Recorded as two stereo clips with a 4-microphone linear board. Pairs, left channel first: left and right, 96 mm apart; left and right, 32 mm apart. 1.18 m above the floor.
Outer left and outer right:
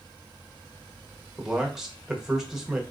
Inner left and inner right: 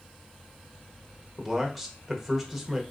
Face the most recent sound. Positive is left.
turn(degrees=-5)  # may be behind; listen again after turning